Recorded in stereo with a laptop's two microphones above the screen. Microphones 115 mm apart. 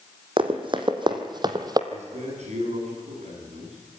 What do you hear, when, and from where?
0.4 s running footsteps: 50° right (ahead or behind), 2.5 m; by 1.8 s 35° right (ahead or behind), 1.7 m
1.9 s a man speaking: 75° right (ahead or behind), 8.5 m